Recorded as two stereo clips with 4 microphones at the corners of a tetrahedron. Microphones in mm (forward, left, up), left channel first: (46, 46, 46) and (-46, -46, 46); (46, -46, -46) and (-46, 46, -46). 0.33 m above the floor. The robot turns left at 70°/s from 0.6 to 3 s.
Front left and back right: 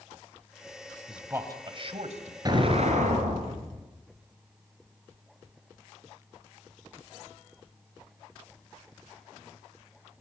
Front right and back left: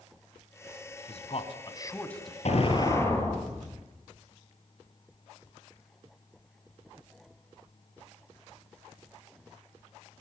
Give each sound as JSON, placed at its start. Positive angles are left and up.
{"t": 1.1, "sound": "a man speaking", "azimuth_deg": -50, "distance_m": 2.5}
{"t": 2.5, "sound": "an explosion", "azimuth_deg": -75, "distance_m": 4.0}